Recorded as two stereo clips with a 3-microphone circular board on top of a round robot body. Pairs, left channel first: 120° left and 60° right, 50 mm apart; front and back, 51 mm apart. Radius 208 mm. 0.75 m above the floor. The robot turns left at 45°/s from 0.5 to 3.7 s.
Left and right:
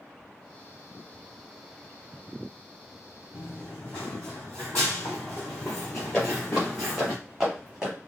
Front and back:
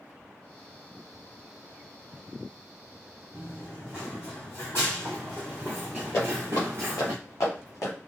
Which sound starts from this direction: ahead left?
Footsteps, at 6.1 s.